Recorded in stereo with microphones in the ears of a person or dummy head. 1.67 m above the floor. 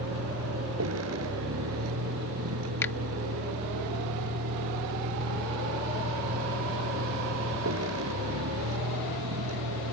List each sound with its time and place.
0.0 s a vehicle: 85° right
2.8 s a finger snap: 10° left (ahead or behind)